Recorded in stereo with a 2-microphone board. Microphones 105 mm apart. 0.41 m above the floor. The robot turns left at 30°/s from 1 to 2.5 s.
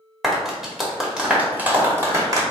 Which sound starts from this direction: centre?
A clap, at 0.2 s.